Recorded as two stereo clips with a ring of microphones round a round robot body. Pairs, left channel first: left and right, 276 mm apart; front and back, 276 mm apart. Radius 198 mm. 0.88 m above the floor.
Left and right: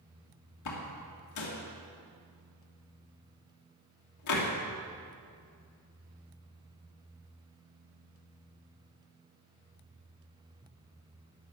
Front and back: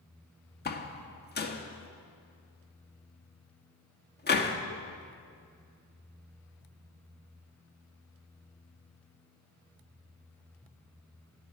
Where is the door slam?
55° left, 1.6 m.